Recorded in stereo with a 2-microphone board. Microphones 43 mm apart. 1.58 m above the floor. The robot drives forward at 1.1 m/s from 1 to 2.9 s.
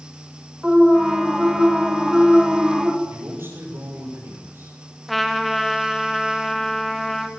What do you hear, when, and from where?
0.6 s an alarm: 20° right (ahead or behind), 7 m; by 2.9 s 25° right (ahead or behind), 5 m
3.0 s a man speaking: 70° right (ahead or behind), 7.5 m
5.1 s a trumpet: centre (ahead or behind), 2 m